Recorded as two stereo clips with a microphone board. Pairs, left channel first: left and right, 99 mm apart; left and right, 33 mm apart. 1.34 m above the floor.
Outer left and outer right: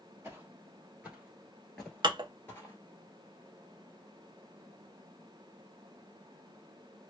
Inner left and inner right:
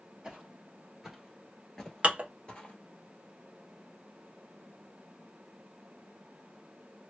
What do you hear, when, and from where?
0.2 s footsteps: 25° right (ahead or behind), 1.5 m; by 2.8 s 25° left (ahead or behind), 1.4 m
2.0 s dishes clattering: 50° right (ahead or behind), 0.7 m